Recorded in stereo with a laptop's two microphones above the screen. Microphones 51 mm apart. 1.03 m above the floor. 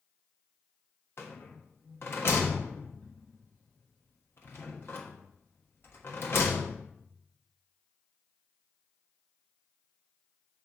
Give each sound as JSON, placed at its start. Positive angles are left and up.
{"t": 1.2, "sound": "a rattle", "side_deg": 50, "distance_m": 1.1}